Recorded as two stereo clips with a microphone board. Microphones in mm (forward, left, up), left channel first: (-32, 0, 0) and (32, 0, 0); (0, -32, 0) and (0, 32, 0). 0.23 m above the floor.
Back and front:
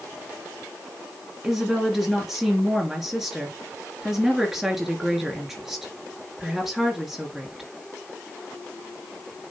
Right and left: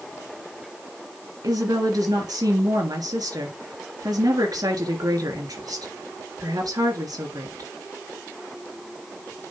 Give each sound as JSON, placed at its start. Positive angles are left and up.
{"t": 1.4, "sound": "a woman speaking", "azimuth_deg": 85, "distance_m": 3.0}